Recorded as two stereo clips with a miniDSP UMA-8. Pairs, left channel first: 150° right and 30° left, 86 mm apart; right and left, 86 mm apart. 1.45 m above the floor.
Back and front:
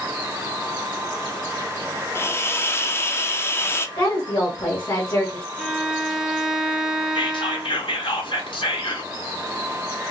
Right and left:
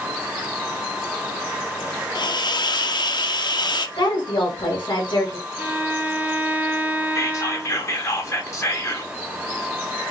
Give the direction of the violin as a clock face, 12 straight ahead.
8 o'clock.